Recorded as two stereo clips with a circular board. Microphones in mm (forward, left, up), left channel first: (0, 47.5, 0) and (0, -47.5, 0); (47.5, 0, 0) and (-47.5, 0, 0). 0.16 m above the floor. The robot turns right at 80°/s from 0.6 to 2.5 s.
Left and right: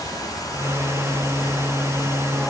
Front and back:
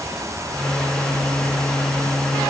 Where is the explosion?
I don't hear an explosion.